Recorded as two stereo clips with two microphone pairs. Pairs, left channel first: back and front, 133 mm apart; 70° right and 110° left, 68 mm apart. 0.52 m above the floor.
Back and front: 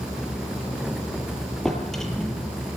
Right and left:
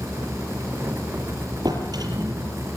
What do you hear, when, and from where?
1.6 s a drawer: 95° left, 7.5 m